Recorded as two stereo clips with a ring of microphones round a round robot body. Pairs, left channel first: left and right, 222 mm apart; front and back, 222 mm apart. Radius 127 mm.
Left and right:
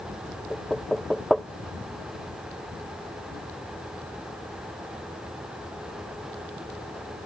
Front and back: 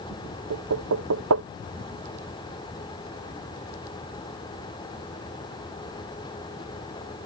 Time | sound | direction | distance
0.5 | knocking | straight behind | ?